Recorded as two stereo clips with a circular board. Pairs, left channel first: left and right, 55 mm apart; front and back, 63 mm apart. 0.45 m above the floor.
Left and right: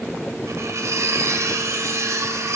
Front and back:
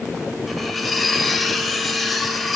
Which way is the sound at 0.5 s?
90° right.